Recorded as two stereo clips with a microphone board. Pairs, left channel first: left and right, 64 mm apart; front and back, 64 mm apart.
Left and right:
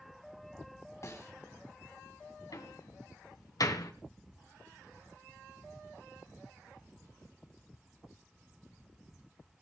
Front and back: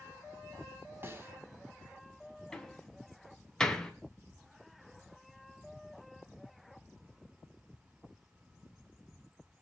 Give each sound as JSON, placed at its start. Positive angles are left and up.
{"t": 1.0, "sound": "a snare drum", "azimuth_deg": 130, "distance_m": 3.5}
{"t": 2.5, "sound": "a door slam", "azimuth_deg": 80, "distance_m": 2.5}